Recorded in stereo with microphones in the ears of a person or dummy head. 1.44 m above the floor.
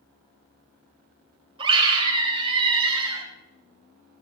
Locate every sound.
1.6 s a scream: 30° right (ahead or behind), 3 m